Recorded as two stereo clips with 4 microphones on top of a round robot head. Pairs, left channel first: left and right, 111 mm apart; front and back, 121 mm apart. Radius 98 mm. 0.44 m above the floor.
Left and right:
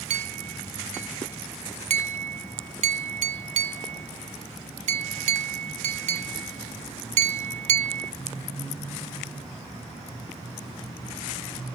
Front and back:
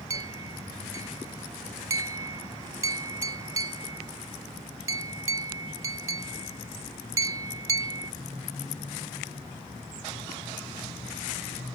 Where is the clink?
110° right.